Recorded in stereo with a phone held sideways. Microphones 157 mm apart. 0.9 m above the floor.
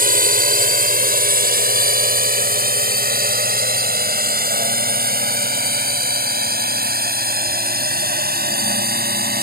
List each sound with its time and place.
0.0 s a drone: 65° right (ahead or behind); by 9.4 s 80° right